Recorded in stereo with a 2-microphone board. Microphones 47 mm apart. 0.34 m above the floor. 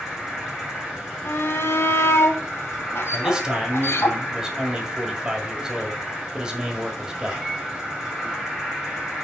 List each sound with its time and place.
0.0 s an insect: centre (ahead or behind), 4.5 m
1.2 s a shout: 60° left (ahead or behind), 1.6 m
3.1 s a man speaking: 15° right (ahead or behind), 1.8 m